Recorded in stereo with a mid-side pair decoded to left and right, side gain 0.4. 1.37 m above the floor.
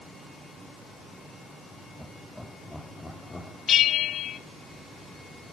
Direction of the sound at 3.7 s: 65° left.